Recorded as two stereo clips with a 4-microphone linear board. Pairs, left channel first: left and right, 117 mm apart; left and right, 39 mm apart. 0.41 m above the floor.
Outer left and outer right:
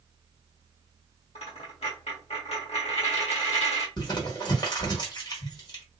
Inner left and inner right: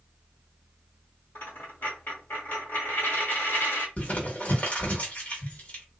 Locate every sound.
1.4 s a dropped coin: 60° left (ahead or behind), 1.7 m
4.0 s crumpling: 35° left (ahead or behind), 1.3 m